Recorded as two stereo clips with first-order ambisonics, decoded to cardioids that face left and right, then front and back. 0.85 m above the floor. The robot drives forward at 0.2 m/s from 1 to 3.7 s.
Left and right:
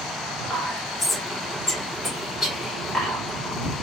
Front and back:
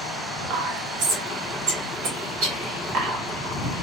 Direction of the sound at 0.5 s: 165° left.